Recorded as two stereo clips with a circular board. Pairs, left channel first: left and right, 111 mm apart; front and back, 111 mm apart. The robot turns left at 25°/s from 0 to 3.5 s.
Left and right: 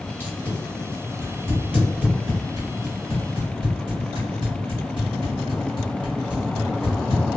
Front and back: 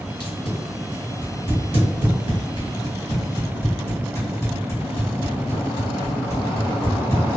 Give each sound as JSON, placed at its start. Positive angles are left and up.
{"t": 0.2, "sound": "tape being pulled", "azimuth_deg": 25, "distance_m": 1.6}